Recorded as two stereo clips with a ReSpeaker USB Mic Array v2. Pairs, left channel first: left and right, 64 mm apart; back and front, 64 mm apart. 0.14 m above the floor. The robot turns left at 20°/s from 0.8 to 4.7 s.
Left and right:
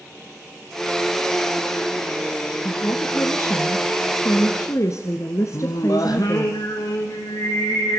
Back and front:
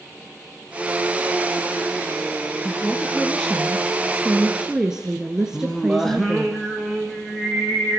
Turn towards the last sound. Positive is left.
turn(degrees=95)